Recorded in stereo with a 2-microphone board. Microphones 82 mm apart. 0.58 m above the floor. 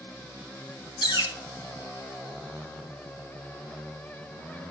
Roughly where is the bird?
Left.